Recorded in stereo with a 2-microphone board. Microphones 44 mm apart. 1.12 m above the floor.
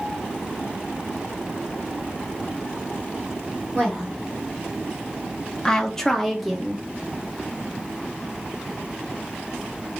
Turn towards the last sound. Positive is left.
turn(degrees=0)  # may be behind; listen again after turning